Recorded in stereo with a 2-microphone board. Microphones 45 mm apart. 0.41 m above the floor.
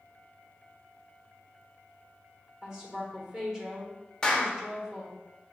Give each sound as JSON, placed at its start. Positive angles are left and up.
{"t": 2.6, "sound": "a woman speaking", "side_deg": -10, "distance_m": 1.3}
{"t": 4.2, "sound": "a clap", "side_deg": 15, "distance_m": 0.7}